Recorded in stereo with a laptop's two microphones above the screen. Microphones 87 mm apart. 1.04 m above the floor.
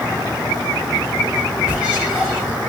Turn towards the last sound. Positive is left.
turn(degrees=-15)  # may be behind; listen again after turning